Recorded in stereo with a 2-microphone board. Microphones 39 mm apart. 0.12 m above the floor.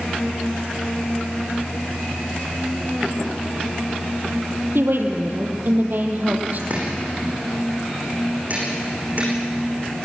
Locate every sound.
4.8 s a woman speaking: 70° right (ahead or behind), 3 m; by 6.6 s 45° right (ahead or behind), 3.5 m
6.7 s chopping: 45° right (ahead or behind), 9 m